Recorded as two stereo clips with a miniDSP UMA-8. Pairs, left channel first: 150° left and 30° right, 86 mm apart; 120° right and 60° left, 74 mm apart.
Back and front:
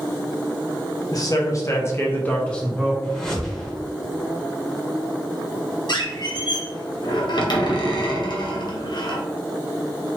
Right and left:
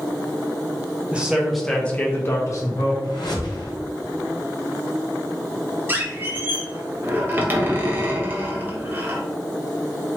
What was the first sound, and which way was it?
A man speaking, 130° left.